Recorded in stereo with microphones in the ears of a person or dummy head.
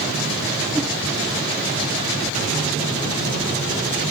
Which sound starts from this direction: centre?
A whoosh, at 0.7 s.